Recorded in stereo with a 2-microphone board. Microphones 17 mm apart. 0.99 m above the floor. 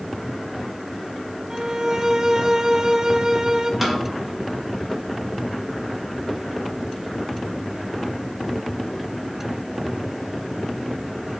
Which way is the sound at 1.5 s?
40° right (ahead or behind).